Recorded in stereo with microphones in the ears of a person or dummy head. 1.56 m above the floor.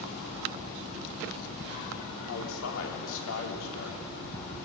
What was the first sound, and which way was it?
A man speaking, 75° left (ahead or behind).